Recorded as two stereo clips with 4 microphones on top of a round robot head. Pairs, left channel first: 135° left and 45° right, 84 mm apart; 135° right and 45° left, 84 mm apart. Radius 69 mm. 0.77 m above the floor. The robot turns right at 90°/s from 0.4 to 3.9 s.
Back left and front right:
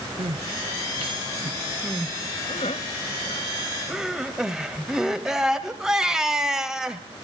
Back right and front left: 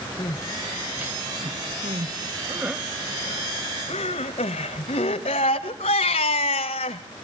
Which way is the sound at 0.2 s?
80° right.